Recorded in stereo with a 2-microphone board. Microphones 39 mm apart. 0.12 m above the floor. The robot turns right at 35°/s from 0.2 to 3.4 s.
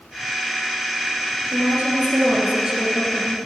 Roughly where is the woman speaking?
Ahead right.